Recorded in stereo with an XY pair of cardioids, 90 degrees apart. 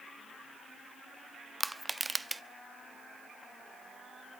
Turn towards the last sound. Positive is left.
turn(degrees=-15)